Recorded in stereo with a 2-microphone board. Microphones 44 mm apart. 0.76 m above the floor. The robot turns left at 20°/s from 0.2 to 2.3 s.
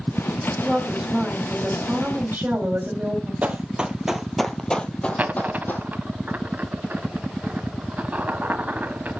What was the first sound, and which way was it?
A woman speaking, 10° right.